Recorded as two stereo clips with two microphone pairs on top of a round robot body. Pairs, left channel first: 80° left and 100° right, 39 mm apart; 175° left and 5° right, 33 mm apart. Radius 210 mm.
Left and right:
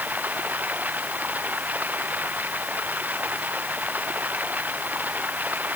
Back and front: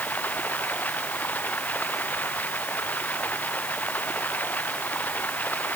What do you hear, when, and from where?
0.0 s running water: 145° right